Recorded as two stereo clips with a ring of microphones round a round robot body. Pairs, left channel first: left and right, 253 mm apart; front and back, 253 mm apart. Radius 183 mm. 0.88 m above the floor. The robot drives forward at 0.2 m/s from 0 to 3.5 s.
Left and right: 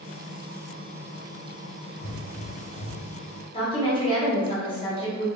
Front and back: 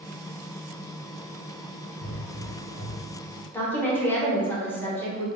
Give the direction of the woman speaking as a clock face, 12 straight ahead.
10 o'clock.